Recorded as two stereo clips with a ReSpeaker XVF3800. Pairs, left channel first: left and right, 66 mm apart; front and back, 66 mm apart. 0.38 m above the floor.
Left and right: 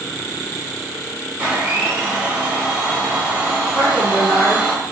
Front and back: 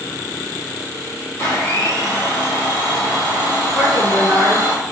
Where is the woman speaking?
10° left, 1.6 m.